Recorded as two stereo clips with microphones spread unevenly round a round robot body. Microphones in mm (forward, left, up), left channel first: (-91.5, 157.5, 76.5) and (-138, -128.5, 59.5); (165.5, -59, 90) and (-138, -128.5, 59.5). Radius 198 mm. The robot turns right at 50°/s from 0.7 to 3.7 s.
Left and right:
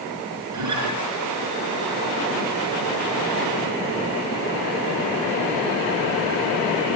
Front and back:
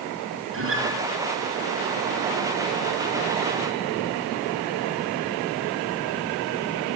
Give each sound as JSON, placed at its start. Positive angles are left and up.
{"t": 0.5, "sound": "a guitar", "azimuth_deg": -120, "distance_m": 3.0}